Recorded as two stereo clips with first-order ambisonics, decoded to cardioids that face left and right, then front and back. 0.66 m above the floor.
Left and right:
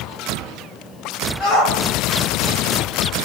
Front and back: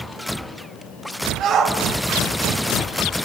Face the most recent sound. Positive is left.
turn(degrees=130)